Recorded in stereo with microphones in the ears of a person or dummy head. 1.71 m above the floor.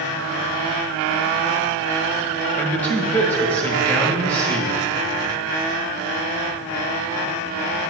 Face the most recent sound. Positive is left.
turn(degrees=10)  # may be behind; listen again after turning